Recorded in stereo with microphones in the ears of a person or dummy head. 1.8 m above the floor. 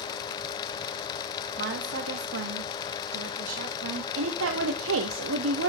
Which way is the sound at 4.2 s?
85° right.